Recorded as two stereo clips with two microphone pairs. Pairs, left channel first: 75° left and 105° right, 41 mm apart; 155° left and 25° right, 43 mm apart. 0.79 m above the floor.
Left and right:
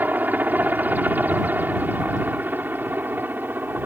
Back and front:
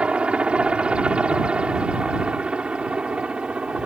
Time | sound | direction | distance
0.0 | a helicopter | 80° right | ?